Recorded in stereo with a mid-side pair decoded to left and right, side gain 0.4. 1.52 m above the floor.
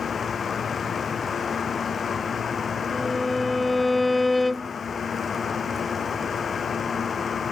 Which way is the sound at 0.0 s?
45° left.